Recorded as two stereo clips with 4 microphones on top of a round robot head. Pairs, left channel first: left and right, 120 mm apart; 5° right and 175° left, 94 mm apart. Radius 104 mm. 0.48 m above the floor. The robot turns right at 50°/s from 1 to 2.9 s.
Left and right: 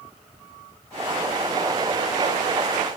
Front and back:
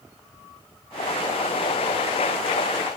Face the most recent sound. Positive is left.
No sound to turn to.